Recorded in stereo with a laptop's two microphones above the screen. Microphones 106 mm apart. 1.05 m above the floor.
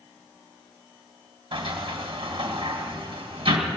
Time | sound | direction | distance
1.5 | a sliding door | 55° right (ahead or behind) | 2.0 m